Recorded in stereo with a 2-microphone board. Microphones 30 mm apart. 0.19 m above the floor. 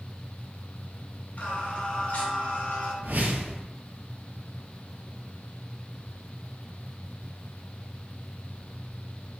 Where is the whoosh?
70° right (ahead or behind), 0.5 m.